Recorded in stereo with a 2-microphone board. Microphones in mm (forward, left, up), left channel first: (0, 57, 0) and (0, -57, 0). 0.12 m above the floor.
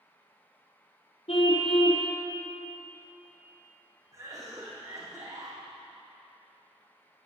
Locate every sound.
1.3 s a car horn: 60° left (ahead or behind), 2.5 m
4.1 s a cough: 35° right (ahead or behind), 6 m